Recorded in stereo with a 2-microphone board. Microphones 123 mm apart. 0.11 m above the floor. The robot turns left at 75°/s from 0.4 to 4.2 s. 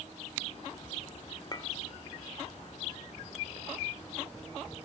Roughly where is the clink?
Left.